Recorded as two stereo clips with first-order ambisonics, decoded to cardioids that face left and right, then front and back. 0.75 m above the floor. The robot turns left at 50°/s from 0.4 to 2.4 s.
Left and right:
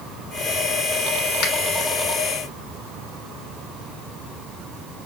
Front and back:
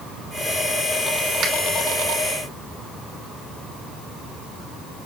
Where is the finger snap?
130° left, 1.3 m; by 1.5 s 120° left, 1.3 m.